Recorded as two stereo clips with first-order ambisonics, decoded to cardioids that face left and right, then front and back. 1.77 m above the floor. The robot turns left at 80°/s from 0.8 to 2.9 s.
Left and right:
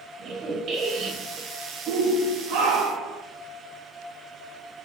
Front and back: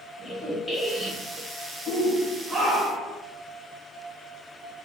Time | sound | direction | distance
0.2 | a squeak | 70° right | 0.9 m
1.9 | a shout | 45° right | 0.9 m